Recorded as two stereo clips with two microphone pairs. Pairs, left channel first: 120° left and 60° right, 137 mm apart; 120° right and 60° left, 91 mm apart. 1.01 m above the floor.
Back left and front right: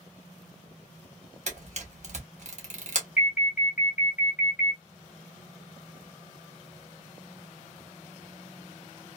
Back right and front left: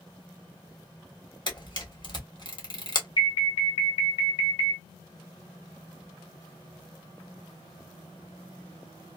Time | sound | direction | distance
1.5 | a camera shutter | 85° right | 1.5 m
3.2 | an alarm | 135° right | 1.7 m